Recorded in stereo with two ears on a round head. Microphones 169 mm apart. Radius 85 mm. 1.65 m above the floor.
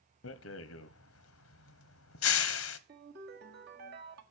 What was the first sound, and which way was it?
A rattle, 85° left.